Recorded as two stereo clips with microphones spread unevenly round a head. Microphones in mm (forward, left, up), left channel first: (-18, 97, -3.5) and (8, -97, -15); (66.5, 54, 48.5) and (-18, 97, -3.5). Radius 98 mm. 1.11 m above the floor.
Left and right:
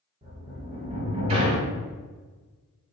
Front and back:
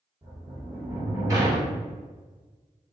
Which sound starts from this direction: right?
A sliding door, at 0.2 s.